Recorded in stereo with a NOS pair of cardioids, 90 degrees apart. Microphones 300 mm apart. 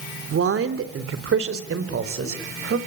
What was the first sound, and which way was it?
A man speaking, 45° right.